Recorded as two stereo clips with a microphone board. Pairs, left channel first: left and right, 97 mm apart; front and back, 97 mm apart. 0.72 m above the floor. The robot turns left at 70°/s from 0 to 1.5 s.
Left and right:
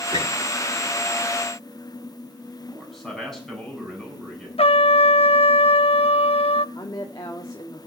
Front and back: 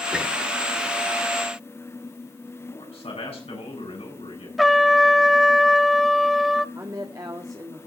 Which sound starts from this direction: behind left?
A woman speaking, at 6.8 s.